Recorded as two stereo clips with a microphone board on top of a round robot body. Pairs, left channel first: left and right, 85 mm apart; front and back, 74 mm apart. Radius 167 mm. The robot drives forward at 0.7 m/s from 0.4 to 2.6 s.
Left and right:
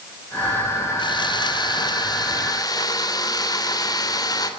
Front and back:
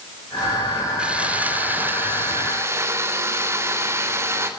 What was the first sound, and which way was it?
Sawing, 105° left.